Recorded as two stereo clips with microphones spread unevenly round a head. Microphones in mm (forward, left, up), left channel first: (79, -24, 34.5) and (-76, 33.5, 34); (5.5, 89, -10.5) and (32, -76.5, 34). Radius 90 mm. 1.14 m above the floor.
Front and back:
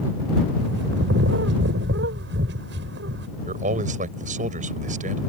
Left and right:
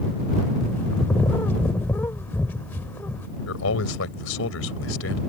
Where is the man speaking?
115° left.